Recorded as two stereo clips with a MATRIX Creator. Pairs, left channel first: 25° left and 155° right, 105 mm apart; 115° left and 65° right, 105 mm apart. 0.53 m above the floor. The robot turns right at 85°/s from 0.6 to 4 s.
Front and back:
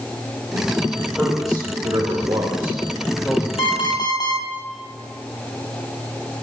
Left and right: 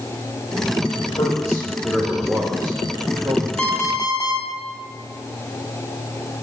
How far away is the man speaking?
About 2 m.